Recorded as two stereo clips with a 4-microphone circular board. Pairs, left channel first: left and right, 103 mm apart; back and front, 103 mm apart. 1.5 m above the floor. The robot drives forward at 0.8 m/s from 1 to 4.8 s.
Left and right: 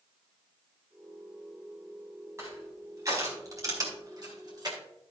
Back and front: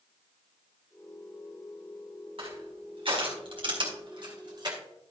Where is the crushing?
25° right, 4.5 m; by 4.8 s 45° right, 3 m.